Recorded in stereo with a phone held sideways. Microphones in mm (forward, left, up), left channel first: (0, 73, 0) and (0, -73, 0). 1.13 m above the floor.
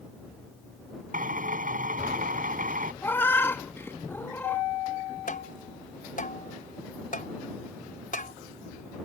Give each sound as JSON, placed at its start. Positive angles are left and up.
{"t": 1.1, "sound": "a drill", "side_deg": -60}
{"t": 3.0, "sound": "a cat meowing", "side_deg": 15}
{"t": 5.3, "sound": "tapping", "side_deg": 60}